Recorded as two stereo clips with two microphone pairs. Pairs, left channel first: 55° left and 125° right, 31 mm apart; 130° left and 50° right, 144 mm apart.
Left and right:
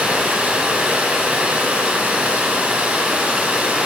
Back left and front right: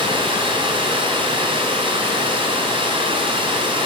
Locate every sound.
0.0 s running water: 90° right, 2.0 m